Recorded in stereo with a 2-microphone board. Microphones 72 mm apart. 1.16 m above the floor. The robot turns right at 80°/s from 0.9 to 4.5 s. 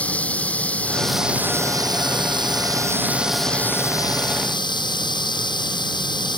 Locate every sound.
0.0 s running water: 160° left; by 6.4 s 90° left